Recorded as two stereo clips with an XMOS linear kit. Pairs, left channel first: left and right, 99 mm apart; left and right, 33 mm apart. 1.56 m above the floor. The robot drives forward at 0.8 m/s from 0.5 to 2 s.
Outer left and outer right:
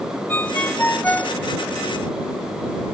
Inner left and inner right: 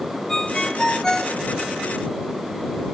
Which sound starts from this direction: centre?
A ringtone, at 0.3 s.